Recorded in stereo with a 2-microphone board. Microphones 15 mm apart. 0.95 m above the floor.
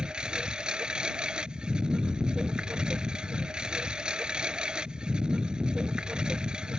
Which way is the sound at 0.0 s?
80° right.